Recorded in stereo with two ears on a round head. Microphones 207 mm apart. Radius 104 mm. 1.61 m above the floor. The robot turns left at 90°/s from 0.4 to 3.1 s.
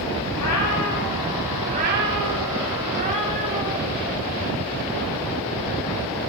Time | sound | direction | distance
0.3 | a cat meowing | 90° left | 6.5 m